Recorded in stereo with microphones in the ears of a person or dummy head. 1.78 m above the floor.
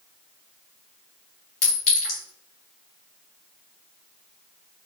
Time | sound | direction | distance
1.6 | a clink | 45° left (ahead or behind) | 1.2 m